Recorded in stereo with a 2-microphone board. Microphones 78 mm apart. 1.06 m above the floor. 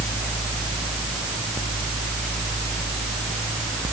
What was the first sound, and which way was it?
Only background noise.